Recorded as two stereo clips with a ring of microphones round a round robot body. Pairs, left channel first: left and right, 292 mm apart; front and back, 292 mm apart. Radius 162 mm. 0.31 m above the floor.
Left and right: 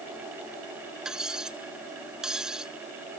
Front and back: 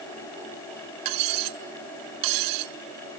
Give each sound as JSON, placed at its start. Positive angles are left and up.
{"t": 1.1, "sound": "cutlery clinking", "azimuth_deg": 180}